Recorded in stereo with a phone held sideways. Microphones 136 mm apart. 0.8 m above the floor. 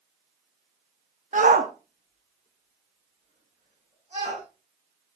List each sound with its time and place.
1.3 s a shout: 65° right (ahead or behind), 0.8 m; by 4.4 s 55° right (ahead or behind), 4.5 m